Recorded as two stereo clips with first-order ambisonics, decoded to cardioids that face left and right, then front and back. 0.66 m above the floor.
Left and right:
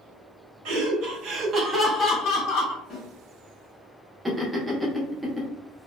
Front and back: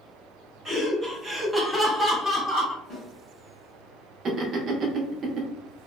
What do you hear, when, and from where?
0.7 s laughter: 100° right, 1.0 m; by 2.8 s 80° left, 0.8 m
2.9 s a snare drum: 70° left, 1.2 m
4.2 s laughter: 165° right, 0.5 m